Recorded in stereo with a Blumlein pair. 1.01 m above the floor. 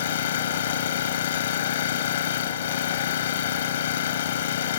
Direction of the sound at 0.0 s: 60° left.